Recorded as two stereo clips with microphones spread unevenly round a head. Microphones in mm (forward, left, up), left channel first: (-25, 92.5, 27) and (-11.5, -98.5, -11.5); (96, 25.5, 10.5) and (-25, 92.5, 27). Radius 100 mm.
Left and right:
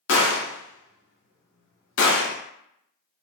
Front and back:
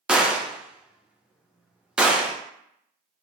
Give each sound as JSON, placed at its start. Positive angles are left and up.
{"t": 0.1, "sound": "a gunshot", "azimuth_deg": 65, "distance_m": 0.6}